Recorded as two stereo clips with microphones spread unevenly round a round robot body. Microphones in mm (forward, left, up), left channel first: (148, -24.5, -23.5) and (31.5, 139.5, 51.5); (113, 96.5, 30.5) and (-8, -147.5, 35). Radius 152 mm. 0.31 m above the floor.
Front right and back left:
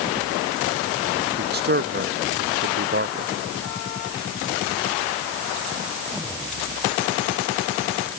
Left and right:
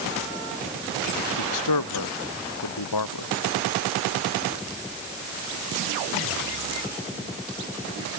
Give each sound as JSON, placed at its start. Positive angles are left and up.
{"t": 1.4, "sound": "a man speaking", "azimuth_deg": 90}